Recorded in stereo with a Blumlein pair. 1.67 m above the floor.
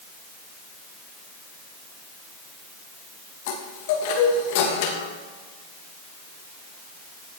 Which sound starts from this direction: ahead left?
A chime, at 3.5 s.